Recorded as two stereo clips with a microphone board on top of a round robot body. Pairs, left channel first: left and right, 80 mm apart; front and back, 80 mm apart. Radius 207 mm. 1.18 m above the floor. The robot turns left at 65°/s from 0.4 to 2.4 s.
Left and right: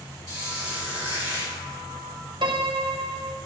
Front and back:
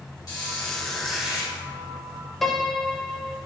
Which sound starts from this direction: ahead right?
A squeak, at 0.3 s.